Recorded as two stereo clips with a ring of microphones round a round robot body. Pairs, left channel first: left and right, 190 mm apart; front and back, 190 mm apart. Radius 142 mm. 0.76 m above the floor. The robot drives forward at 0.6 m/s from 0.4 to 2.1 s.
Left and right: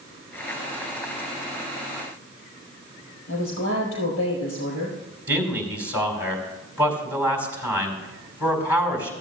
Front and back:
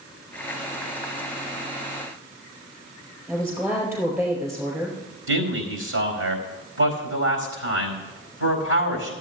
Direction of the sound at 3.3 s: 105° left.